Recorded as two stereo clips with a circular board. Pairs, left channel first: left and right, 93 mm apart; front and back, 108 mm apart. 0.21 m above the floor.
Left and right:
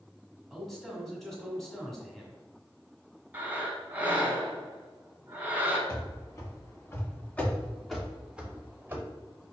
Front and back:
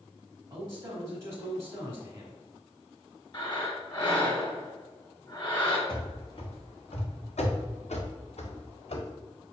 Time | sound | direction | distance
0.5 | a man speaking | straight behind | 1.2 m
3.3 | breathing | 25° right | 1.2 m
5.9 | running footsteps | 45° left | 1.7 m